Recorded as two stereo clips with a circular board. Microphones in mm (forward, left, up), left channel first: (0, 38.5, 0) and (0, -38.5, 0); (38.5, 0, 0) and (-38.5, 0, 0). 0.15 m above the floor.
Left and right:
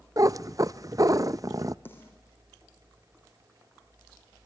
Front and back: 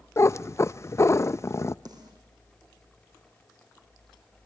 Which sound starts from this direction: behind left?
A snare drum, at 1.9 s.